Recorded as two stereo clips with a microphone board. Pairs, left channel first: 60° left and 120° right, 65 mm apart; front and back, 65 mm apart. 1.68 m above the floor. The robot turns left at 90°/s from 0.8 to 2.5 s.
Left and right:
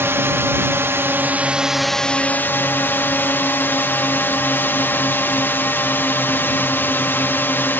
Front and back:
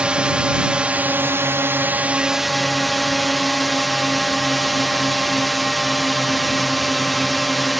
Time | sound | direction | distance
0.0 | a drone | 115° right | ?